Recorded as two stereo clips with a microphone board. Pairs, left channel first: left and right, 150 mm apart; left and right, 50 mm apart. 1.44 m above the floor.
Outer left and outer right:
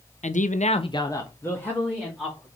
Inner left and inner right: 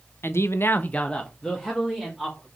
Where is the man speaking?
55° left (ahead or behind), 0.7 m; by 2.5 s 5° left (ahead or behind), 3 m.